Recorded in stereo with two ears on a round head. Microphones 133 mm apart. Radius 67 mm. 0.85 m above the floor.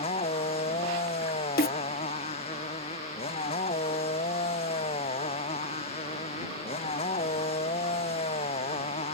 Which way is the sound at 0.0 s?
45° left (ahead or behind).